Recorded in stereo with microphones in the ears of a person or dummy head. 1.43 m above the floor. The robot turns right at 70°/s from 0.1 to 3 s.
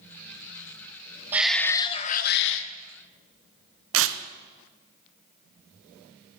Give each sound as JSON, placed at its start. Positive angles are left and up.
{"t": 1.3, "sound": "a shout", "azimuth_deg": -10, "distance_m": 1.0}
{"t": 3.9, "sound": "tearing paper", "side_deg": -65, "distance_m": 0.8}